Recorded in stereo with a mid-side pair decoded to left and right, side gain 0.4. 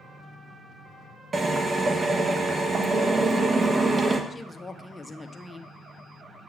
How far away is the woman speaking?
About 1.1 m.